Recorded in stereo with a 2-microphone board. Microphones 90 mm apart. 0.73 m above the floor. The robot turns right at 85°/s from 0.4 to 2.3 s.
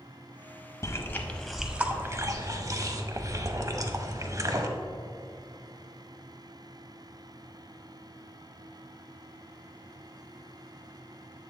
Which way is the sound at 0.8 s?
35° left (ahead or behind).